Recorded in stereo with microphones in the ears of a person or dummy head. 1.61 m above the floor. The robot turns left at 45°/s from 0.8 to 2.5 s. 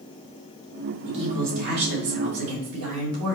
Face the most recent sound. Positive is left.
turn(degrees=-95)